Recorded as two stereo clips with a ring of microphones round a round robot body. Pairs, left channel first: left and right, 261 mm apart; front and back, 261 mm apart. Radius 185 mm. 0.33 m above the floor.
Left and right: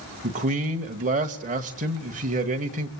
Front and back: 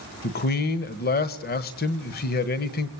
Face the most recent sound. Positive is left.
turn(degrees=-40)